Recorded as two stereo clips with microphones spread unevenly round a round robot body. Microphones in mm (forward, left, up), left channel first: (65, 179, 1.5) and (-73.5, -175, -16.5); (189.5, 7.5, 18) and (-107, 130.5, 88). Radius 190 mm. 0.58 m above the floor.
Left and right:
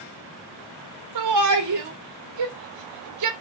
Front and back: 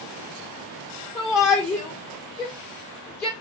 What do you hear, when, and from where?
1.1 s a shout: 90° right, 1.7 m